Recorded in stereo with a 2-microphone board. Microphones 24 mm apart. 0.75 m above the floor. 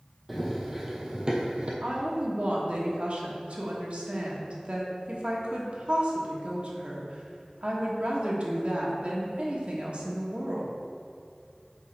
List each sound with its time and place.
0.3 s running footsteps: 5° right (ahead or behind), 1.4 m; by 1.7 s 50° right (ahead or behind), 1.3 m
1.8 s a woman speaking: 55° right (ahead or behind), 1.3 m